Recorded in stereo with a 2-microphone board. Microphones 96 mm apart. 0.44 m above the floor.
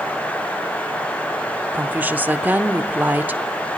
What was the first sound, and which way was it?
A woman speaking, 15° right (ahead or behind).